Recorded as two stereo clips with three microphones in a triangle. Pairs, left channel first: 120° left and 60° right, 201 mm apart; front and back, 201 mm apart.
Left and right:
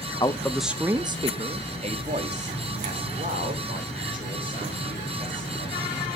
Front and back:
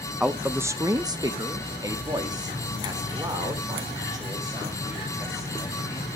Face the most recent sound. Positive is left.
turn(degrees=-105)